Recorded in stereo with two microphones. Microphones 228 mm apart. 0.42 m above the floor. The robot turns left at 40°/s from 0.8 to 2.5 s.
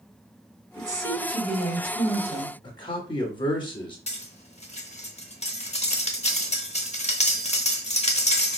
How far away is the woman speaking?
About 1.9 m.